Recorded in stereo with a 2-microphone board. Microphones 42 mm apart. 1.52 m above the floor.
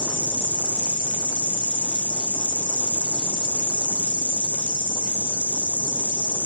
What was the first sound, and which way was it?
An insect, 30° left (ahead or behind).